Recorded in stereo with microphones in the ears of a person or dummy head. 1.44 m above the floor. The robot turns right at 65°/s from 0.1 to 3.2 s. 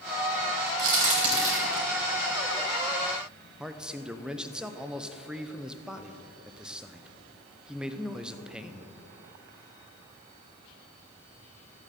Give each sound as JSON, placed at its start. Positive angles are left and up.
{"t": 0.8, "sound": "a crack", "side_deg": -60, "distance_m": 4.0}
{"t": 3.6, "sound": "a man speaking", "side_deg": -10, "distance_m": 0.6}